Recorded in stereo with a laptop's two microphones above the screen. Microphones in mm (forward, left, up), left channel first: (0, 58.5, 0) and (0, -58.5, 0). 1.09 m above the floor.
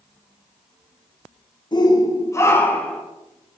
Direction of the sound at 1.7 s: 40° left (ahead or behind).